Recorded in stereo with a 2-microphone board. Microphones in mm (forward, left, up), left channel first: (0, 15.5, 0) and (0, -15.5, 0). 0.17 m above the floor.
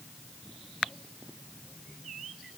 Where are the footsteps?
No footsteps in this recording.